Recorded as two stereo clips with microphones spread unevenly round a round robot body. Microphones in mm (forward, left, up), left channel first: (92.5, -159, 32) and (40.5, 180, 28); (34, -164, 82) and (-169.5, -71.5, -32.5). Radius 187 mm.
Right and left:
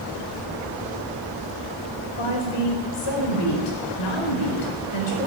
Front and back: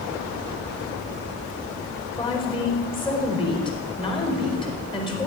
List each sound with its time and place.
2.2 s a woman speaking: 95° right, 4.5 m